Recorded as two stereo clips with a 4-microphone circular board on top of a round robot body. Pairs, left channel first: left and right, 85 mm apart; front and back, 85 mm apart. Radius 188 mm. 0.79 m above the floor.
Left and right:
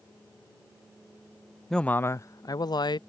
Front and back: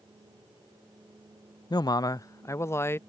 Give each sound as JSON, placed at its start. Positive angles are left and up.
{"t": 1.7, "sound": "a man speaking", "azimuth_deg": 5}